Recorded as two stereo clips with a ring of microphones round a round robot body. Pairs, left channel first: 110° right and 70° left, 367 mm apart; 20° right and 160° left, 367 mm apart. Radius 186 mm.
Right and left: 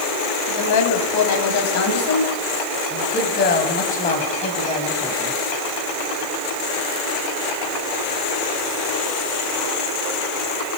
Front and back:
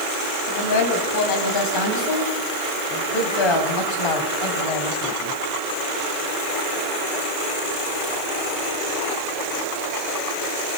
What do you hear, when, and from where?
0.5 s a woman speaking: 70° right, 5 m; by 5.4 s 30° right, 5.5 m